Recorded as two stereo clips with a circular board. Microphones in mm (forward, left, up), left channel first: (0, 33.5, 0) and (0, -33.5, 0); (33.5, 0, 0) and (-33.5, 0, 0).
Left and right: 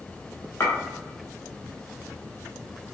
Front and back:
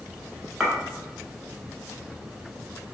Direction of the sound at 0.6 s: 90° left.